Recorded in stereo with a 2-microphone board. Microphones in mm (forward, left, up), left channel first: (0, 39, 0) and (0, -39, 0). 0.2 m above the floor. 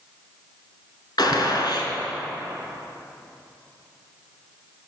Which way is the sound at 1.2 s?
65° left (ahead or behind).